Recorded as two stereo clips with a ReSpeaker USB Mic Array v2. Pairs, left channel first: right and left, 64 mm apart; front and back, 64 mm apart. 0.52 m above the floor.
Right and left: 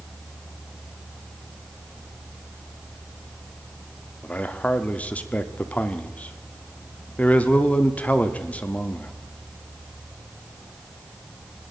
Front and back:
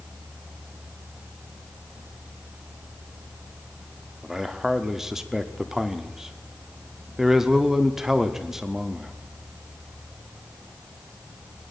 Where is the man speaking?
110° right, 0.8 m.